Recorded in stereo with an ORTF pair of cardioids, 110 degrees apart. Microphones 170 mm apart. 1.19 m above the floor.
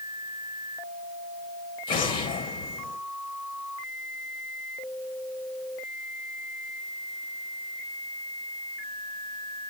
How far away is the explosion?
About 1.8 m.